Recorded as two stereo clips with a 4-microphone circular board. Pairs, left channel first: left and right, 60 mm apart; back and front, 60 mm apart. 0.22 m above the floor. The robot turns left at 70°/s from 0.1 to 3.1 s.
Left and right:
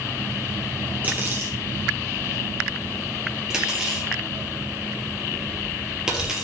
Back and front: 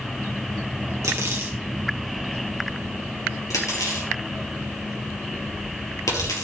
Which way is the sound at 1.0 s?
25° right.